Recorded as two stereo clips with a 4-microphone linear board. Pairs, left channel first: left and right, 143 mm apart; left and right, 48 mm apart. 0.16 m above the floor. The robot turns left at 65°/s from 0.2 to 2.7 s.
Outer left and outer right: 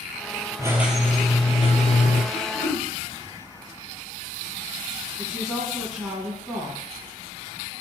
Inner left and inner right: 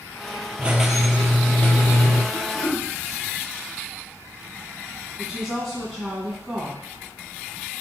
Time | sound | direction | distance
0.6 | a squeak | 155° right | 0.6 m
2.3 | throat clearing | 70° left (ahead or behind) | 1.7 m
5.2 | a woman speaking | 5° left (ahead or behind) | 1.4 m